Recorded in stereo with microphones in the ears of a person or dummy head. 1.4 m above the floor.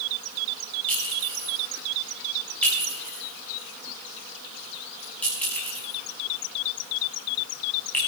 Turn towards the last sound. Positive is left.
turn(degrees=10)  # may be behind; listen again after turning